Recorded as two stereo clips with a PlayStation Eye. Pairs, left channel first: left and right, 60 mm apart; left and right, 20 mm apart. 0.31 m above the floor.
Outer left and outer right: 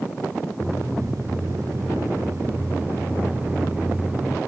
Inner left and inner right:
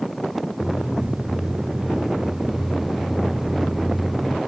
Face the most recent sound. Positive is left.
turn(degrees=-25)  # may be behind; listen again after turning